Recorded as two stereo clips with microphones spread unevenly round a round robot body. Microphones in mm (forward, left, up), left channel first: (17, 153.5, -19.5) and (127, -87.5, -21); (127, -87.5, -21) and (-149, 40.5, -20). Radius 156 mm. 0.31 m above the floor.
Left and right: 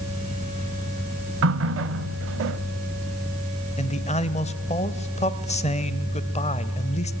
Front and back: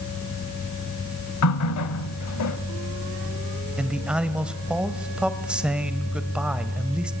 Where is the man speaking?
70° left, 1.2 m.